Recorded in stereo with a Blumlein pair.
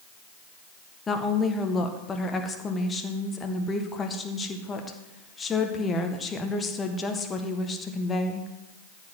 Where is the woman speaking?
15° left, 1.7 m.